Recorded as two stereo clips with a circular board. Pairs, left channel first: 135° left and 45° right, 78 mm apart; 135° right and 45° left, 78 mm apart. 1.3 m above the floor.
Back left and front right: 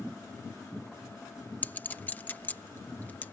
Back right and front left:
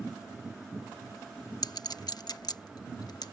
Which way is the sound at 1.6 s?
160° right.